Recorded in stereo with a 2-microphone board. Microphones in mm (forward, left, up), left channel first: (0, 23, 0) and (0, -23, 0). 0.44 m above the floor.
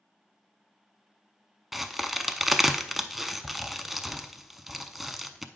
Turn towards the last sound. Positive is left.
turn(degrees=-5)  # may be behind; listen again after turning